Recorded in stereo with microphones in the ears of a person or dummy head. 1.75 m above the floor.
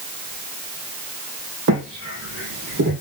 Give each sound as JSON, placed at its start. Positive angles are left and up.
{"t": 1.7, "sound": "footsteps", "side_deg": -60, "distance_m": 3.5}